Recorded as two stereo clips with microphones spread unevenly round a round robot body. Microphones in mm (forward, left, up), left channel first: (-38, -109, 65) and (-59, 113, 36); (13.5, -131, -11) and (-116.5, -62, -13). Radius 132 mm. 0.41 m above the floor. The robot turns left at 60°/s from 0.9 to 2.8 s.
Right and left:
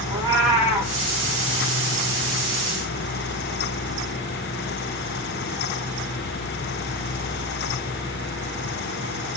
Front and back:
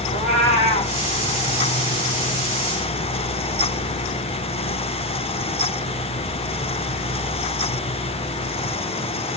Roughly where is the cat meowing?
Ahead.